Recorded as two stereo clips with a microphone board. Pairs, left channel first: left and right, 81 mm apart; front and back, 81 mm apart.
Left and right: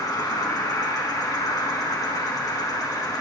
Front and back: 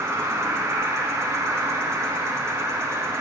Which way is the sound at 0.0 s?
125° left.